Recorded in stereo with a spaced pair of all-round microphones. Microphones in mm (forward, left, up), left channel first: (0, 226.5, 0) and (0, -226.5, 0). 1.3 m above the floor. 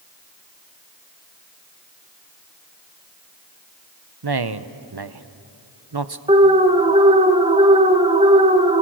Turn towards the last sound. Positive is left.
turn(degrees=-15)  # may be behind; listen again after turning